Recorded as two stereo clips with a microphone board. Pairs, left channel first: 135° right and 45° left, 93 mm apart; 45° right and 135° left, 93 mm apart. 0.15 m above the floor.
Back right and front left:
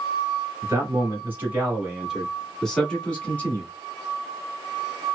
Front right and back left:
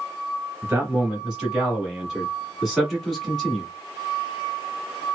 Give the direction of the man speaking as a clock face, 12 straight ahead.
10 o'clock.